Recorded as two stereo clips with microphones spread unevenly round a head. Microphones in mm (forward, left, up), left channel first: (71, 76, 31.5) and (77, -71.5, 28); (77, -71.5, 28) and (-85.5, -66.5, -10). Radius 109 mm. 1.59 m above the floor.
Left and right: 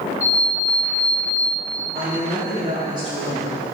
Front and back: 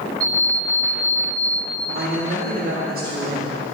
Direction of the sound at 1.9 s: 155° right.